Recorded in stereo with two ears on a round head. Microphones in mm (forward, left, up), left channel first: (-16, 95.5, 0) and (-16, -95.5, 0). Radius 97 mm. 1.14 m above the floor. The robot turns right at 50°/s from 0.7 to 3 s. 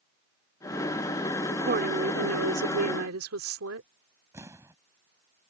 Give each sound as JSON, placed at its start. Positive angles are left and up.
{"t": 1.5, "sound": "a woman speaking", "azimuth_deg": -140}
{"t": 4.3, "sound": "an explosion", "side_deg": -15}